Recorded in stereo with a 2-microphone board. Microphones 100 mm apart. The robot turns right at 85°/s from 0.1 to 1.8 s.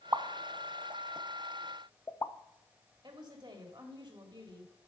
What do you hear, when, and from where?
0.1 s a pop: 30° right (ahead or behind), 0.6 m; by 2.3 s 30° left (ahead or behind), 0.6 m
3.0 s a woman speaking: 50° right (ahead or behind), 2 m